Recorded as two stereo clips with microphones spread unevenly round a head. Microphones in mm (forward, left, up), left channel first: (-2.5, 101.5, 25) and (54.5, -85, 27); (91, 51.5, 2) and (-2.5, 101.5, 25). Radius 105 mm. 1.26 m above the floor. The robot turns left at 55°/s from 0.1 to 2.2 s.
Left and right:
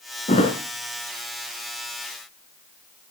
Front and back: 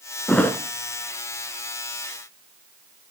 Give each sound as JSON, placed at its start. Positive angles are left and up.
{"t": 0.3, "sound": "a thud", "azimuth_deg": 60, "distance_m": 2.0}